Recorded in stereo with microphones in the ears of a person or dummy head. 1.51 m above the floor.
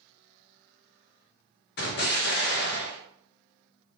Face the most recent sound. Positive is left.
turn(degrees=55)  # may be behind; listen again after turning